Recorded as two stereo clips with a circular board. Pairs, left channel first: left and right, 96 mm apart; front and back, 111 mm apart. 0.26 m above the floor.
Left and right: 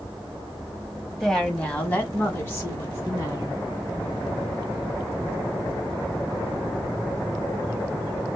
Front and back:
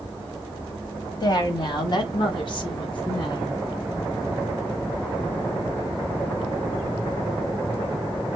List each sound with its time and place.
1.2 s a woman speaking: 5° left, 1.2 m; by 3.6 s 40° left, 2.5 m